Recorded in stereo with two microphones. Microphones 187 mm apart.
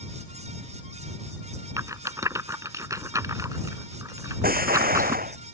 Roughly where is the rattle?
Centre.